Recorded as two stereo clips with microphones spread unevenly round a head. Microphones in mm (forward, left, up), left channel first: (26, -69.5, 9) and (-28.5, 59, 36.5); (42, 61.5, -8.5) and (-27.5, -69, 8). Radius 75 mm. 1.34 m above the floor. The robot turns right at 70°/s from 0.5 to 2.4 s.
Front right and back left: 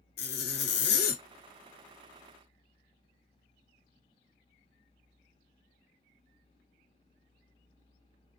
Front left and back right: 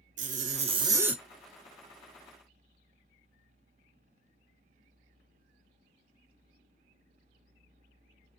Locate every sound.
0.2 s a zipper: 80° right, 0.8 m; by 1.2 s 30° right, 0.8 m